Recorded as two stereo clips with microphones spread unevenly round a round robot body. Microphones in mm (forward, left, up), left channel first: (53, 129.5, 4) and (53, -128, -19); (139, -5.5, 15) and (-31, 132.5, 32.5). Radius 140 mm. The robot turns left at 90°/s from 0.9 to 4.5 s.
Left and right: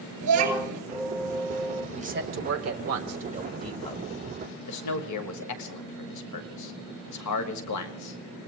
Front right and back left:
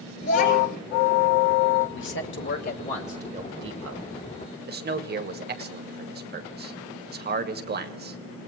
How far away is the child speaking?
About 7 m.